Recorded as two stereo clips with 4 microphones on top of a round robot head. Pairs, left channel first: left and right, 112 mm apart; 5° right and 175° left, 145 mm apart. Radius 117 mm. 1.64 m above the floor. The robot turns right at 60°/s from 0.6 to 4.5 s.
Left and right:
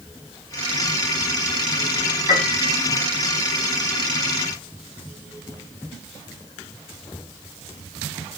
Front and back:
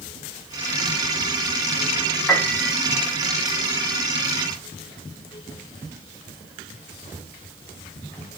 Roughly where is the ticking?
I don't hear ticking.